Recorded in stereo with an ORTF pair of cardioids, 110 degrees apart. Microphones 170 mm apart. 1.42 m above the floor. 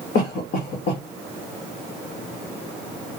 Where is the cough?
70° left, 1.5 m.